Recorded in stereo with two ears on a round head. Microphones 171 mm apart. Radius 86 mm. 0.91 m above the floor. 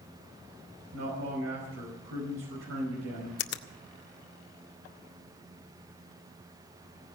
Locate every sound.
0.9 s a man speaking: 75° right (ahead or behind), 5 m
3.4 s a finger snap: 60° left (ahead or behind), 0.9 m